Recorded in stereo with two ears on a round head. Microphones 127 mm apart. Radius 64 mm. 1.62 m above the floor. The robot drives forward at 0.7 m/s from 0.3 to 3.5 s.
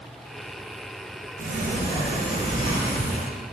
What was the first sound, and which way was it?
A sliding door, 65° right (ahead or behind).